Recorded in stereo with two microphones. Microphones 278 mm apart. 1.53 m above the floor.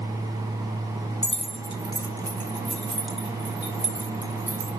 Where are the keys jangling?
25° left (ahead or behind), 0.8 m; by 4.7 s 10° right (ahead or behind), 2 m.